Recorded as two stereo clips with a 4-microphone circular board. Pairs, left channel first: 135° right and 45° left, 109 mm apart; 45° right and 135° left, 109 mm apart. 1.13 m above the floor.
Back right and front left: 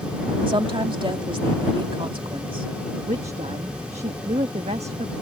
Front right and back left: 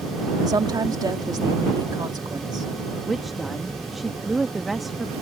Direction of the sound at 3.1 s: 45° left.